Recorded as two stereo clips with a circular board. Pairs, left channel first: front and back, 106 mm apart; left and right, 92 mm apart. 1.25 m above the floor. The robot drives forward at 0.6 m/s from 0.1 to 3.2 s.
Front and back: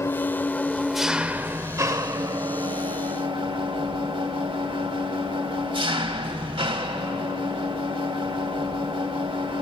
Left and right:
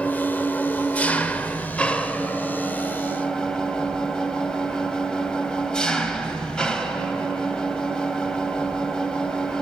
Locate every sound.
0.0 s an engine running: 30° left, 1.0 m; by 9.6 s 170° left, 1.7 m